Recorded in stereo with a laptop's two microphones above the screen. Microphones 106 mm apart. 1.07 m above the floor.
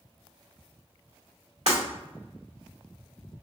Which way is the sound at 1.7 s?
80° right.